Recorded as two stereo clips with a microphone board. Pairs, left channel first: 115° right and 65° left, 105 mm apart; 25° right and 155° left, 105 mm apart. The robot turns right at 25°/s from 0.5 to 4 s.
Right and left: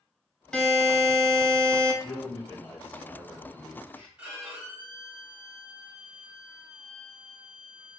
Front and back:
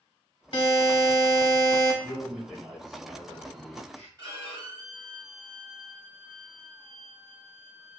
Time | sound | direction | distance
0.5 | a buzzer | 30° right | 0.7 m
2.0 | a man speaking | 135° right | 1.1 m
4.2 | a violin | 135° left | 1.7 m